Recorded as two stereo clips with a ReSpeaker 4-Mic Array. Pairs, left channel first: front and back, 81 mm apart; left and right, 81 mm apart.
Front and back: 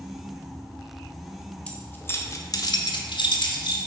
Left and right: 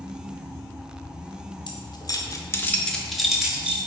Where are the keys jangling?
75° left, 0.9 m; by 3.8 s 15° right, 1.2 m.